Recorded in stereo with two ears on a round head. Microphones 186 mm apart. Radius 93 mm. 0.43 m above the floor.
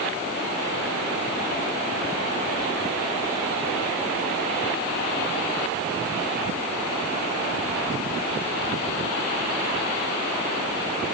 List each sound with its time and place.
Only background noise.